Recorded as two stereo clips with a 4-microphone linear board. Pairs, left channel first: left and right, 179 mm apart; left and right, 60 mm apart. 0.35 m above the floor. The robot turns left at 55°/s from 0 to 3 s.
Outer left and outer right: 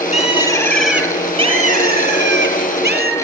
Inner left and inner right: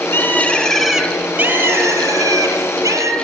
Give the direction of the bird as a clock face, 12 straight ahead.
11 o'clock.